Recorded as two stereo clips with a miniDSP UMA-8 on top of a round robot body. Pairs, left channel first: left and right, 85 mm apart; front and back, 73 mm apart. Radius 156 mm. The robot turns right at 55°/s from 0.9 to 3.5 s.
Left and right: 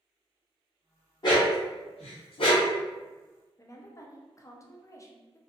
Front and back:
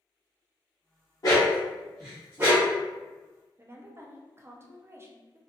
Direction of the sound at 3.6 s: 135° left.